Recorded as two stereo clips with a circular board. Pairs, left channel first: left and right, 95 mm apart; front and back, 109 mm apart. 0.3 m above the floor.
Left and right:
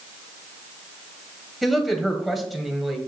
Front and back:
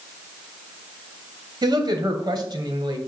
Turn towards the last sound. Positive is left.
turn(degrees=180)